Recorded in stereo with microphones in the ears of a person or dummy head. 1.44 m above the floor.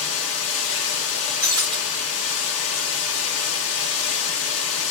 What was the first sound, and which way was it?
Running water, 75° left (ahead or behind).